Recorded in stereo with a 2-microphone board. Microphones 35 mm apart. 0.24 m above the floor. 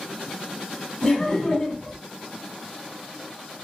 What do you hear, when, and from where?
1.0 s laughter: 15° left (ahead or behind), 1.8 m